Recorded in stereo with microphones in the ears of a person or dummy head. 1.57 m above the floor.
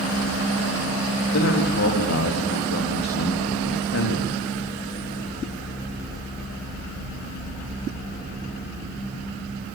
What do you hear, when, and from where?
1.3 s a man speaking: 65° left (ahead or behind), 3.5 m